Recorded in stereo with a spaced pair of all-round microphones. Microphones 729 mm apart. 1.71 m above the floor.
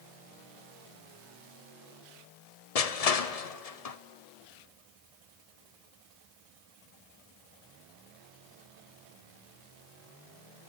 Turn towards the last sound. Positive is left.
turn(degrees=55)  # may be behind; listen again after turning